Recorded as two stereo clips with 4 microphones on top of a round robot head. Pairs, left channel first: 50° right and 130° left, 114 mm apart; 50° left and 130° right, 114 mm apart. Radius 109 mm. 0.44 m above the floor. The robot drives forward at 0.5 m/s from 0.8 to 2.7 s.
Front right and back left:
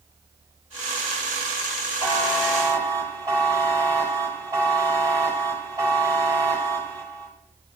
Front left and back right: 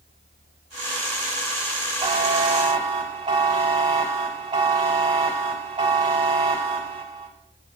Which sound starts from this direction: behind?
A buzzer, at 2.0 s.